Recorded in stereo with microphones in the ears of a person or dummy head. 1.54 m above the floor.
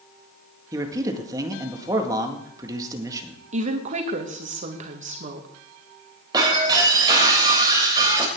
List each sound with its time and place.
0.7 s a man speaking: 20° right (ahead or behind), 1.8 m
3.5 s a woman speaking: 45° right (ahead or behind), 1.5 m
6.3 s breaking glass: 20° right (ahead or behind), 3 m